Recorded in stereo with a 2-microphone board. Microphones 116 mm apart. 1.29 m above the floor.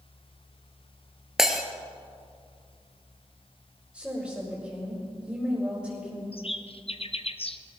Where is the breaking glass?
5° right (ahead or behind), 1.4 m.